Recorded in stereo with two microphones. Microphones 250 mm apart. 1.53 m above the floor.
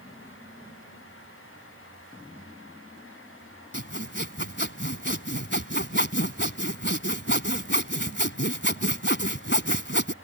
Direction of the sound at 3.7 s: 45° left (ahead or behind).